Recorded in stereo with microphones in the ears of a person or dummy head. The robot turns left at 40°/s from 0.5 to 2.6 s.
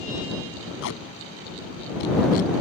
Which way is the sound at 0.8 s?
70° left (ahead or behind).